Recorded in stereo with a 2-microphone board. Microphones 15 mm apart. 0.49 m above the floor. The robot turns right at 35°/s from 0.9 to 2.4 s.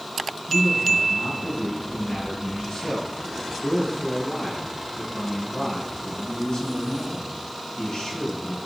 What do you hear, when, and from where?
0.5 s a man speaking: 55° left, 3.5 m; by 8.6 s 110° left, 3.5 m